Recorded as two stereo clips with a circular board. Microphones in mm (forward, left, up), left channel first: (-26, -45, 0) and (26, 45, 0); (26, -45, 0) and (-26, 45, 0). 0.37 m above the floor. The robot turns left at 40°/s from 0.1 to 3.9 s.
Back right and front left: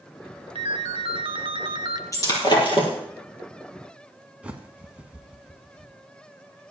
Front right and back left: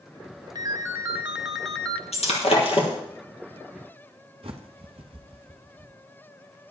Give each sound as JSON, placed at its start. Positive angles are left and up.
{"t": 0.6, "sound": "a ringtone", "azimuth_deg": 70, "distance_m": 0.9}
{"t": 2.1, "sound": "breaking glass", "azimuth_deg": -65, "distance_m": 3.0}
{"t": 4.4, "sound": "a bird", "azimuth_deg": 135, "distance_m": 1.2}